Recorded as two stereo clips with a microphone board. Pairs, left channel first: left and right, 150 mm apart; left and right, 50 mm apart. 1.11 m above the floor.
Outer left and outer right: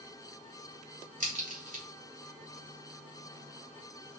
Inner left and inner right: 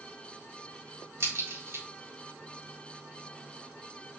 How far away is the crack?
About 3.5 m.